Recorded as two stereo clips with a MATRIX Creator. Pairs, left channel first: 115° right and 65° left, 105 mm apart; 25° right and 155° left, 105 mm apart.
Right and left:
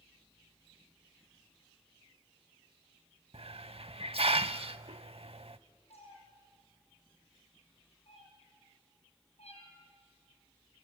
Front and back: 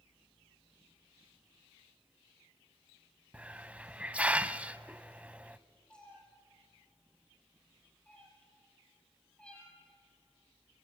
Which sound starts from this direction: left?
A hiss, at 3.3 s.